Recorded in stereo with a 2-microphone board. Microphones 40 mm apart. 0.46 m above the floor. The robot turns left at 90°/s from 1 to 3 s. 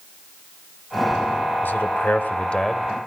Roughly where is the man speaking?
Left.